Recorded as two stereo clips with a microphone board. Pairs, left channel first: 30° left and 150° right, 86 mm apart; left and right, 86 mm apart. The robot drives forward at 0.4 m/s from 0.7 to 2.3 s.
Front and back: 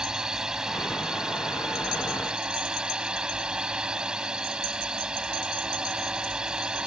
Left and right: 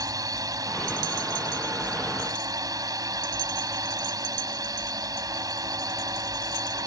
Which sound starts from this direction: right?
A drone, at 0.0 s.